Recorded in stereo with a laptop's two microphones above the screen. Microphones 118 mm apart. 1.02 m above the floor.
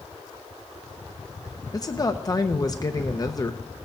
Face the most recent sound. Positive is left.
turn(degrees=30)  # may be behind; listen again after turning